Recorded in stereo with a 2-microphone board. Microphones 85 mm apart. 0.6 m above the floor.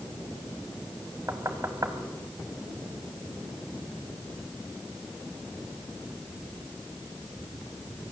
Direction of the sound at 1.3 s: 35° right (ahead or behind).